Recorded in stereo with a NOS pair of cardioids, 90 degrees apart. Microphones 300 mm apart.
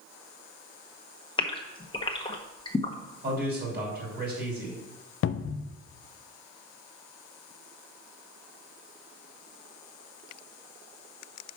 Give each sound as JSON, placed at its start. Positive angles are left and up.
{"t": 1.4, "sound": "a gasp", "azimuth_deg": 15, "distance_m": 1.3}
{"t": 3.2, "sound": "a man speaking", "azimuth_deg": -35, "distance_m": 4.5}
{"t": 5.2, "sound": "a cupboard door", "azimuth_deg": 45, "distance_m": 0.6}